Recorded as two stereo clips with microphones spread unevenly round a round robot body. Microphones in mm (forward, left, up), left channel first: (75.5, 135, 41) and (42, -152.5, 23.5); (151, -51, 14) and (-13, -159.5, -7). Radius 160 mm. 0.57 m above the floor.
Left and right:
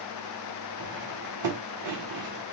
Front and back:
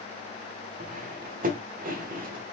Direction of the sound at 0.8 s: 105° right.